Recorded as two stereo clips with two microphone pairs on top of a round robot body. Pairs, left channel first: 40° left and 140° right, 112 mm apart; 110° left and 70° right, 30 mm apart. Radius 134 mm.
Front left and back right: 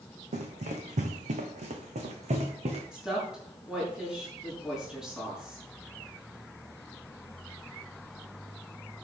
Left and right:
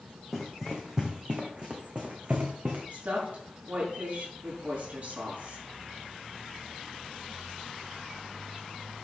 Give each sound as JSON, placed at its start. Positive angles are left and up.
{"t": 0.3, "sound": "running footsteps", "azimuth_deg": -160, "distance_m": 1.9}
{"t": 2.9, "sound": "a woman speaking", "azimuth_deg": -55, "distance_m": 6.5}